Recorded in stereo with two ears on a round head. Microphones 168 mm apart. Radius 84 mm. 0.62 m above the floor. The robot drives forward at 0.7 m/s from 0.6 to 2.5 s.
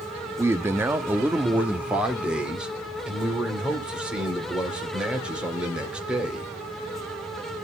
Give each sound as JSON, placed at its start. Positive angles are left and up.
{"t": 0.4, "sound": "a man speaking", "side_deg": -15, "distance_m": 0.7}